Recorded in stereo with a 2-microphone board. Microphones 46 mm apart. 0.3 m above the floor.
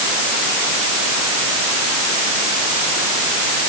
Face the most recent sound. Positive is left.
No sound to turn to.